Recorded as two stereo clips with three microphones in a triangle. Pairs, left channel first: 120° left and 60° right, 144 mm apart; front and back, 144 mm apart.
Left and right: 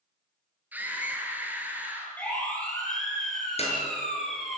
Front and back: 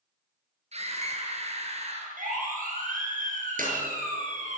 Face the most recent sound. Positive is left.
turn(degrees=165)